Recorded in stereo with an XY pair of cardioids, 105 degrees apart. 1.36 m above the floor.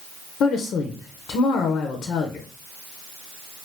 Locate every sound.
0.4 s a woman speaking: 70° left, 0.7 m